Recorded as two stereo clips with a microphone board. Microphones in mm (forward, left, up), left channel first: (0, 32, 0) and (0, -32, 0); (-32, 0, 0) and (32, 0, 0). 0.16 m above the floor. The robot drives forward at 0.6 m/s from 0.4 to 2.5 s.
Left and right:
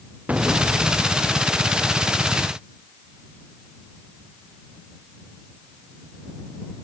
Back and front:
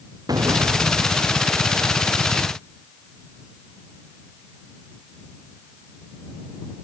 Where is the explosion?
20° right.